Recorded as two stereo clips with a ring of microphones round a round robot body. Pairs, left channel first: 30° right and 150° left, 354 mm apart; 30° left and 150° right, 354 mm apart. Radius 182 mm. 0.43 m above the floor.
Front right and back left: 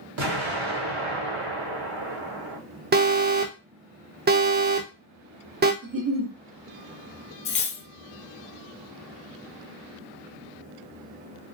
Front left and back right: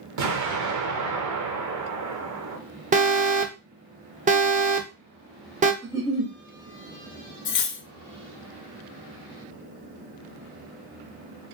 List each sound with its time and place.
0.2 s an explosion: 170° right, 1.5 m
2.9 s an alarm: 165° left, 0.7 m
5.8 s a giggle: 135° left, 1.1 m
7.5 s cutlery clinking: 25° left, 0.6 m